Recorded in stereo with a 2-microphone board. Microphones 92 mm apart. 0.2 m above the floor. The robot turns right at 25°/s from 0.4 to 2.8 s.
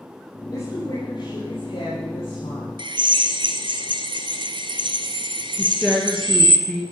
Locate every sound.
0.5 s a woman speaking: 45° left, 6.5 m; by 2.7 s 100° left, 6.5 m
2.8 s a drill: 60° right (ahead or behind), 1.5 m
5.6 s a woman speaking: 5° left (ahead or behind), 3 m